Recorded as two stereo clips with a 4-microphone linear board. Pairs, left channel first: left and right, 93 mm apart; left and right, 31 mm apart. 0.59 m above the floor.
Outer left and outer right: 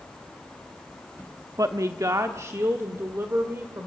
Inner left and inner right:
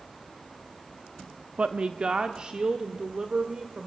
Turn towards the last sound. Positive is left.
turn(degrees=-25)  # may be behind; listen again after turning